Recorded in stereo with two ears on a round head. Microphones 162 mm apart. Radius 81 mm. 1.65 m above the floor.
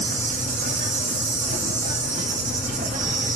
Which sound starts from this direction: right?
An insect, at 0.0 s.